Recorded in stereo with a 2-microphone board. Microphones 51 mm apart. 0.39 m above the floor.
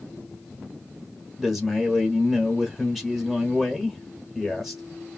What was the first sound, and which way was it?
A man speaking, centre (ahead or behind).